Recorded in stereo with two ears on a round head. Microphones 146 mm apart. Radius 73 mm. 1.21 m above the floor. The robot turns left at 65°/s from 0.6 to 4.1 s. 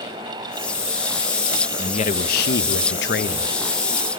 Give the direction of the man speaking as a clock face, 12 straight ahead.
7 o'clock.